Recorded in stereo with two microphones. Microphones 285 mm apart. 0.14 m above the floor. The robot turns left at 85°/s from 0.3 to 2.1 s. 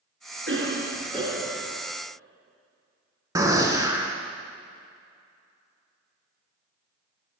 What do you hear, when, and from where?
0.5 s a cough: 95° right, 1.3 m; by 1.8 s 155° left, 1.3 m
3.4 s a gunshot: 10° right (ahead or behind), 0.6 m